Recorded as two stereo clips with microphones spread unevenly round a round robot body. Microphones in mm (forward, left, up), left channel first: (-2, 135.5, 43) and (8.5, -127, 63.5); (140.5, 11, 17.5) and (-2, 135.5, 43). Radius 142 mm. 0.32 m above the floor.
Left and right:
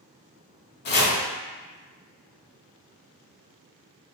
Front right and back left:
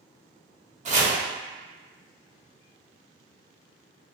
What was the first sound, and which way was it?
Chopping, 95° left.